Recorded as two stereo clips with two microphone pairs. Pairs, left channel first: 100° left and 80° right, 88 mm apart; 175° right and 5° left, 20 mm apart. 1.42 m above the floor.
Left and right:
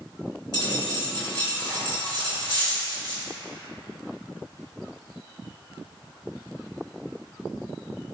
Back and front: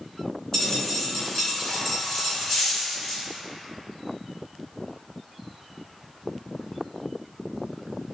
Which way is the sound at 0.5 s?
125° left.